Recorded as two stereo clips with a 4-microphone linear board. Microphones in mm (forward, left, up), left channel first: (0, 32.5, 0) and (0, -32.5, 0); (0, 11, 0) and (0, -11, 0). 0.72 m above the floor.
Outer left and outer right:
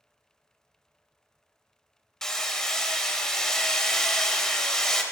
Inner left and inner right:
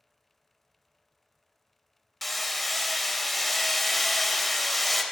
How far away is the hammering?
About 0.7 m.